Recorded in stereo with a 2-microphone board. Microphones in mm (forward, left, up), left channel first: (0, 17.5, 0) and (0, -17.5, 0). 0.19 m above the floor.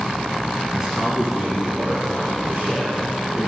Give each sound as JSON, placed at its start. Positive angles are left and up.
{"t": 0.7, "sound": "a man speaking", "side_deg": -15, "distance_m": 1.4}